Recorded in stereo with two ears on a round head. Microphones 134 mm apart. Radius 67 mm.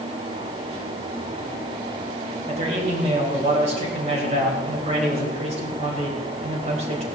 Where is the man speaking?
45° right (ahead or behind), 4 m.